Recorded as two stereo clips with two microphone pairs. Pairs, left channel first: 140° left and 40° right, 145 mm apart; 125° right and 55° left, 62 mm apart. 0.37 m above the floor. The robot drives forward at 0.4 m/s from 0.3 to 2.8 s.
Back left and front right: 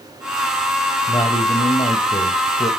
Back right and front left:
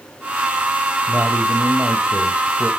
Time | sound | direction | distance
1.1 | a man speaking | 95° left | 1.6 m